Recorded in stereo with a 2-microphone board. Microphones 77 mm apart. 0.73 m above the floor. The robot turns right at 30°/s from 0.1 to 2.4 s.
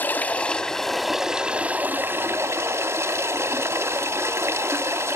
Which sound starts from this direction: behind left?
Running water, at 0.0 s.